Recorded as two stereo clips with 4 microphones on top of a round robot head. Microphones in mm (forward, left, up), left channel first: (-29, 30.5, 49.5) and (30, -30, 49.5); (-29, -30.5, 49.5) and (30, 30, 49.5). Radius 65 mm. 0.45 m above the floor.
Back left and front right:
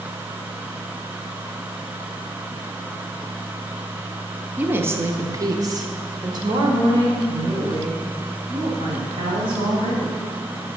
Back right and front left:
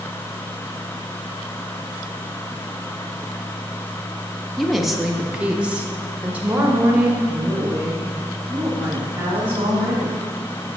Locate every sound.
4.6 s a woman speaking: 55° right, 0.9 m; by 10.2 s 20° right, 4 m